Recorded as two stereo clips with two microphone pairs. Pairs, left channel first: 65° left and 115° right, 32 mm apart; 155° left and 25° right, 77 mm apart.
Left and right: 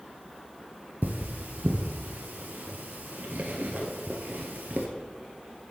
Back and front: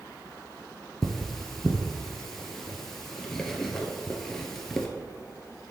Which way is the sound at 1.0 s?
120° right.